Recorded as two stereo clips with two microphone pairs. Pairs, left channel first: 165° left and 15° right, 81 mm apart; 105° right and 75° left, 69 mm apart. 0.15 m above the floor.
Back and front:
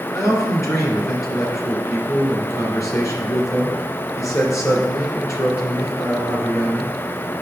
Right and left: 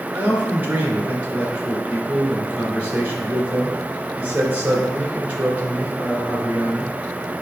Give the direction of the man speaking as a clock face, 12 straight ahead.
8 o'clock.